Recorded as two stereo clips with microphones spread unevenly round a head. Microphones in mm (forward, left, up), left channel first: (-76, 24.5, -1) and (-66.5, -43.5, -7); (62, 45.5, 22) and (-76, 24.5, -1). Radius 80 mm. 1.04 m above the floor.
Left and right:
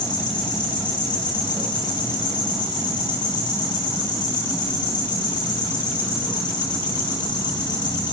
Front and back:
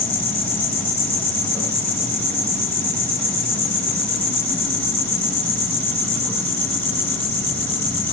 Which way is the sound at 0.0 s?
85° left.